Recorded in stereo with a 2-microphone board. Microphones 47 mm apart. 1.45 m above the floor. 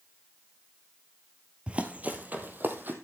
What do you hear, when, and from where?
1.7 s running footsteps: 25° right (ahead or behind), 1.7 m; by 2.9 s 45° right (ahead or behind), 3 m